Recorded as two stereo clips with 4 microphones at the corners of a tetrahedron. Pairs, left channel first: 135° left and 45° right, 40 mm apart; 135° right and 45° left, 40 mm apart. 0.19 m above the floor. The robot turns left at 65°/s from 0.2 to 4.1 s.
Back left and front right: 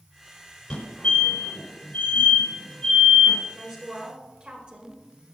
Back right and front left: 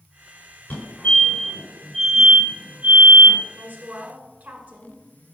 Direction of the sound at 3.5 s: 35° left.